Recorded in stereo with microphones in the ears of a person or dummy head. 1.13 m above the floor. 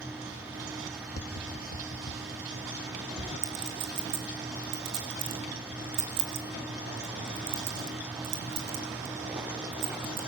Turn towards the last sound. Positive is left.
turn(degrees=-60)  # may be behind; listen again after turning